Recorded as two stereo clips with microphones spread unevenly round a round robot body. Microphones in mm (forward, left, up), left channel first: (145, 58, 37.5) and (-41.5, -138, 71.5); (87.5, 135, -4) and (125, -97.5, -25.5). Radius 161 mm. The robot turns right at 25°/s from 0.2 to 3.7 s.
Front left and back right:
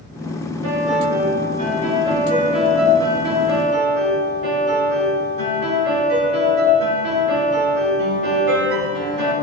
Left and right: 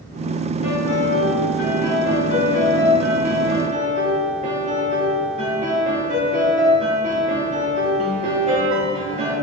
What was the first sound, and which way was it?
A piano, 130° left.